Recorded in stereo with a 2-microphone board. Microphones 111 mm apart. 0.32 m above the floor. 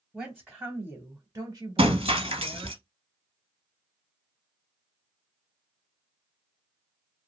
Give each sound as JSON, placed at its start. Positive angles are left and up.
{"t": 0.1, "sound": "a woman speaking", "side_deg": 0, "distance_m": 1.3}
{"t": 1.8, "sound": "breaking glass", "side_deg": -65, "distance_m": 0.8}